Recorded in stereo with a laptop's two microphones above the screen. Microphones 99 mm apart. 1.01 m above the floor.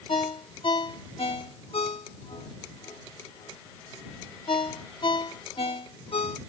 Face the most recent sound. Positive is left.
turn(degrees=65)  # may be behind; listen again after turning